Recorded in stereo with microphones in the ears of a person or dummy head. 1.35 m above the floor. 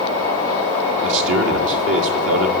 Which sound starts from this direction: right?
A man speaking, at 1.0 s.